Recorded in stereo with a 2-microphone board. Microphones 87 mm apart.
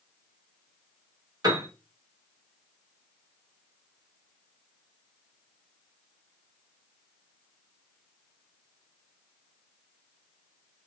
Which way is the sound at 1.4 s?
45° right (ahead or behind).